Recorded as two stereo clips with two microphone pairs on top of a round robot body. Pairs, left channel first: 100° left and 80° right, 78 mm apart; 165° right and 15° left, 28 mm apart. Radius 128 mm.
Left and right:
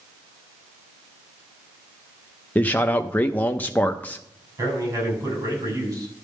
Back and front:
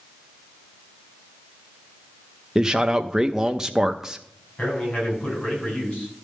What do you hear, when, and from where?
2.5 s a man speaking: 35° left, 0.7 m
4.6 s a man speaking: 120° right, 4.5 m